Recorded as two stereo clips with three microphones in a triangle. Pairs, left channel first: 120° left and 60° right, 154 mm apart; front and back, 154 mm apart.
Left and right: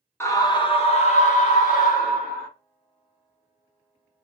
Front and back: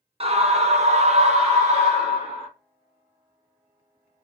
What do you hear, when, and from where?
0.2 s a scream: 175° right, 0.7 m; by 2.5 s 135° left, 1.6 m